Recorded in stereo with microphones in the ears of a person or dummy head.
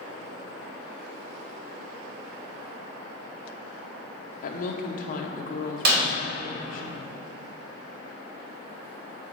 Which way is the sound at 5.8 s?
65° right (ahead or behind).